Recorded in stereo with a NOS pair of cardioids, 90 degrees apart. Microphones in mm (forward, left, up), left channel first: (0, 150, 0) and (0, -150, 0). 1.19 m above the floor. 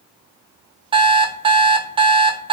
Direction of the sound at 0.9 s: 15° right.